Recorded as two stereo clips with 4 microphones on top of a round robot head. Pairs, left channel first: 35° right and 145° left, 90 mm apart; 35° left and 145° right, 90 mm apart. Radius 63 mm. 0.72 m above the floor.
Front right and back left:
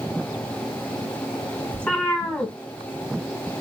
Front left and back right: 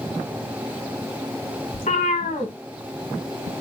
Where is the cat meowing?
40° left, 0.8 m.